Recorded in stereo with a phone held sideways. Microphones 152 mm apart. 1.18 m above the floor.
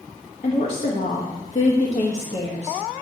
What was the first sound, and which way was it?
A woman speaking, 65° left (ahead or behind).